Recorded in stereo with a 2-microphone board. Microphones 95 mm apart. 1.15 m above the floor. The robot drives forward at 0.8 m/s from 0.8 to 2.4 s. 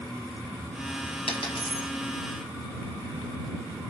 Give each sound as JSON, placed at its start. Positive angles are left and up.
{"t": 1.3, "sound": "a dropped coin", "side_deg": 80, "distance_m": 5.5}